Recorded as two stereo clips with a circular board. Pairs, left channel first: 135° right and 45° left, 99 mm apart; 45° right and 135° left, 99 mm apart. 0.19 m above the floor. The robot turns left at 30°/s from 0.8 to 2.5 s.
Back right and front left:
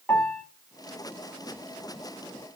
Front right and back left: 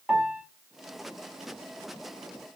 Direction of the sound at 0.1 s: 160° right.